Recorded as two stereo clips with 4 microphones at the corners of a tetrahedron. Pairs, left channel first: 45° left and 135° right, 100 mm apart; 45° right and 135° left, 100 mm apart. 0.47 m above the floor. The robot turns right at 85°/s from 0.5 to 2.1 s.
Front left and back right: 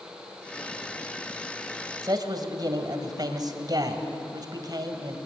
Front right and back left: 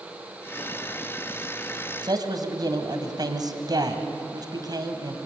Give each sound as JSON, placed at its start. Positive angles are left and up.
{"t": 2.0, "sound": "a man speaking", "azimuth_deg": 175, "distance_m": 2.0}